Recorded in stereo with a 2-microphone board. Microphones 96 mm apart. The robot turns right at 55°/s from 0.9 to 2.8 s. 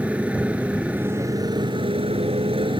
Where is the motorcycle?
165° right; by 2.8 s 60° right.